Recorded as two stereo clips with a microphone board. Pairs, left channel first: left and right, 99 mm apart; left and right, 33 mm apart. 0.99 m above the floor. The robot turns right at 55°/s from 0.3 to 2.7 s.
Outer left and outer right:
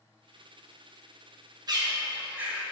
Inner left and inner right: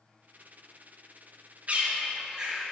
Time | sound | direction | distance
1.7 | a bird | 45° right (ahead or behind) | 1.2 m